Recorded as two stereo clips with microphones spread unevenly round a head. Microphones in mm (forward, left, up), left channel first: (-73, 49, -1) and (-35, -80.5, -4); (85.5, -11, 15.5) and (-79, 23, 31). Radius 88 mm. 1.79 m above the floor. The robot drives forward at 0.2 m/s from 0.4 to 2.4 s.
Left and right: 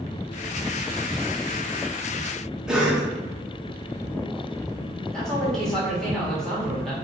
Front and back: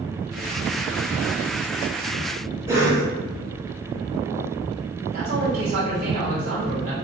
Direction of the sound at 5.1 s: 170° right.